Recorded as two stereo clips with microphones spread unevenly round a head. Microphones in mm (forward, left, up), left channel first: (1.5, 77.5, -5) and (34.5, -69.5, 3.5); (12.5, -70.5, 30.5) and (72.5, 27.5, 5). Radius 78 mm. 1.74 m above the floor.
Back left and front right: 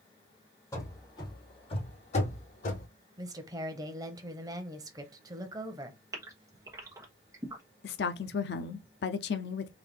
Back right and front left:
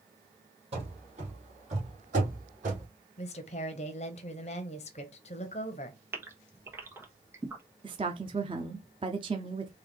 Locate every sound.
0.7 s running footsteps: 40° left, 2.5 m; by 2.9 s 90° left, 2.5 m
3.2 s a woman speaking: 140° right, 0.7 m
6.1 s a gasp: 15° right, 1.2 m
7.8 s a woman speaking: 125° left, 0.5 m